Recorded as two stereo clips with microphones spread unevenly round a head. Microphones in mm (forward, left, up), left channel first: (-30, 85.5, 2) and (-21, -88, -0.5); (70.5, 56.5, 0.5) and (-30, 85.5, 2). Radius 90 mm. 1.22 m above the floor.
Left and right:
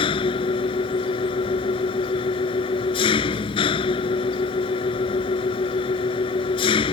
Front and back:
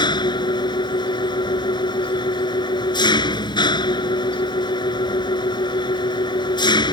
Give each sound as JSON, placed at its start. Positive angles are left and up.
{"t": 0.0, "sound": "an engine running", "azimuth_deg": 30}